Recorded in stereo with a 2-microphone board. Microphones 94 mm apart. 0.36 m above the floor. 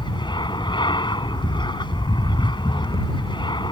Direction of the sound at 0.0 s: 60° left (ahead or behind).